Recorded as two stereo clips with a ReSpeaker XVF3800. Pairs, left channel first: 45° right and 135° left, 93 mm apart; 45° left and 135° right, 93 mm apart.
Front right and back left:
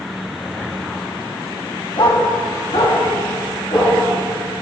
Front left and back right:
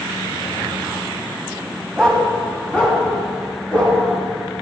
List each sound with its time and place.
2.0 s a dog barking: 40° right, 1.9 m; by 4.0 s 30° right, 4.5 m